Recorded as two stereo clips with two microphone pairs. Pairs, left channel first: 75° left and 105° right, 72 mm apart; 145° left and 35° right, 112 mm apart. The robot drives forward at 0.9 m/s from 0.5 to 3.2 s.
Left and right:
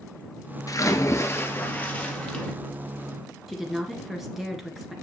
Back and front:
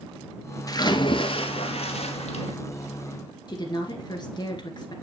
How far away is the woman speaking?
About 1.9 m.